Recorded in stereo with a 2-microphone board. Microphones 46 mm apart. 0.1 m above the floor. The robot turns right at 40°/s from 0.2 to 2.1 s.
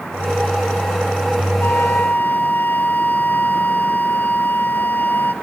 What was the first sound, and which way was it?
A flute, 55° left (ahead or behind).